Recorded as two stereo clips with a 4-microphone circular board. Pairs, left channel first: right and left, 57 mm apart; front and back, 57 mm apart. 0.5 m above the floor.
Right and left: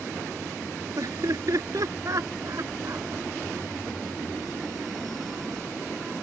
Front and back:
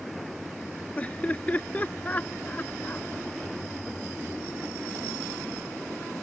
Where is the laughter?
65° left; by 3.1 s 60° left.